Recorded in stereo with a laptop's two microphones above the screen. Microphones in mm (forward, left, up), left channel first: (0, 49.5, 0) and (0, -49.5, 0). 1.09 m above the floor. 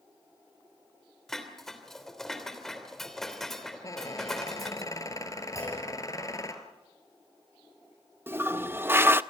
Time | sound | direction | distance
1.3 | dishes clattering | 5° left (ahead or behind) | 3 m
3.8 | a squeak | 35° left (ahead or behind) | 1.7 m
5.5 | a clunk | 35° left (ahead or behind) | 8.5 m
8.3 | a toilet flushing | 20° right (ahead or behind) | 0.6 m